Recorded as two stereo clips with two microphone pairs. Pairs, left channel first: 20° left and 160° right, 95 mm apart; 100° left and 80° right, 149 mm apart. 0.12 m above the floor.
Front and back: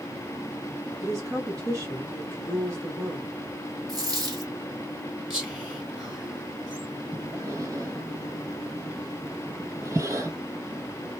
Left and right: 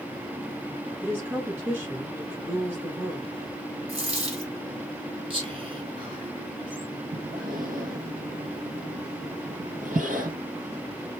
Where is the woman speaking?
145° right, 1.6 m.